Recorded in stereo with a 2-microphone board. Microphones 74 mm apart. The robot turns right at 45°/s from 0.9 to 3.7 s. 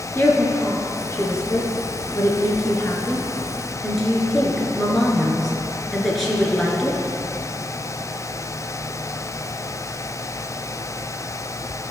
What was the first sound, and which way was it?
A woman speaking, 35° left (ahead or behind).